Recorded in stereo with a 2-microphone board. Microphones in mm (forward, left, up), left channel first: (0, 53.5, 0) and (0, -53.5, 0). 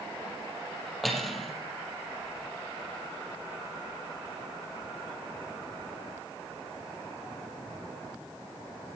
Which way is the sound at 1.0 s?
Centre (ahead or behind).